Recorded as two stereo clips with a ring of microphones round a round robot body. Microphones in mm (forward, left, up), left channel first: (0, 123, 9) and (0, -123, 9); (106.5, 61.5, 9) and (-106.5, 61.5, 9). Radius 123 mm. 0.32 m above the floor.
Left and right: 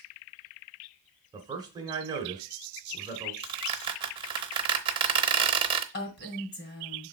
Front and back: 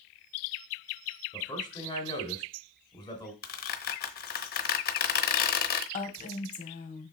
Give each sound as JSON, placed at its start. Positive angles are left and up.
{"t": 1.3, "sound": "a man speaking", "azimuth_deg": -40, "distance_m": 1.4}
{"t": 3.4, "sound": "a squeak", "azimuth_deg": -25, "distance_m": 0.8}
{"t": 5.9, "sound": "a woman speaking", "azimuth_deg": 45, "distance_m": 2.0}